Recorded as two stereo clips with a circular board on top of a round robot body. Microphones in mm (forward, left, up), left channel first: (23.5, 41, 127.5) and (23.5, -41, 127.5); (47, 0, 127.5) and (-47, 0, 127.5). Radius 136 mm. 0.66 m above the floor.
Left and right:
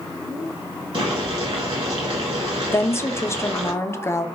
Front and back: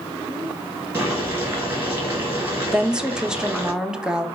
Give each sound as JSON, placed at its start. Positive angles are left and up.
{"t": 0.9, "sound": "boiling", "azimuth_deg": -110, "distance_m": 1.6}
{"t": 2.7, "sound": "a woman speaking", "azimuth_deg": 105, "distance_m": 0.8}